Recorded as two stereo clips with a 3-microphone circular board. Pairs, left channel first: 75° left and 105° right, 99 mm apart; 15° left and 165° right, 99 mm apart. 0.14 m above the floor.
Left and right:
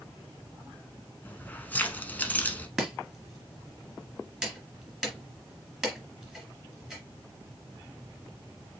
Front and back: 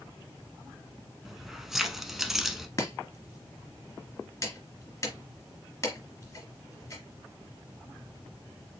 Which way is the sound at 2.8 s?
25° right.